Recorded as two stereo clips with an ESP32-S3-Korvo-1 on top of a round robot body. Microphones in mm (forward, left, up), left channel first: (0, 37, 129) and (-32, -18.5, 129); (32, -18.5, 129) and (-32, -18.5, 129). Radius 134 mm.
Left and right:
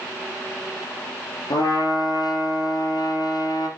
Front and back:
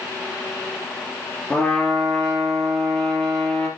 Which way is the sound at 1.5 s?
75° left.